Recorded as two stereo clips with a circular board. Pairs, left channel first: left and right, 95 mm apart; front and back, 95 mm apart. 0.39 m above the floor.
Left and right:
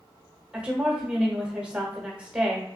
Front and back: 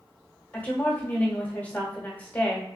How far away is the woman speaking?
About 1.0 m.